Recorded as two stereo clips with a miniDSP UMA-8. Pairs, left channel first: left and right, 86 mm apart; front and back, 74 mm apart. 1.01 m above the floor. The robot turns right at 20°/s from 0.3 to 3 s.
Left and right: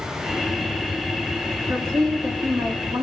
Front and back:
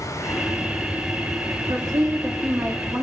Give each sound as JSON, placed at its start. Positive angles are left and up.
{"t": 1.7, "sound": "a woman speaking", "azimuth_deg": -150, "distance_m": 2.0}